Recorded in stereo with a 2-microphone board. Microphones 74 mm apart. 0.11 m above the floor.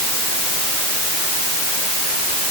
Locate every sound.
Only background noise.